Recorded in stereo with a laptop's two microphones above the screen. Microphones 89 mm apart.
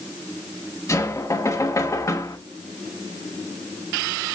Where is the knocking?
35° left (ahead or behind), 1.0 m.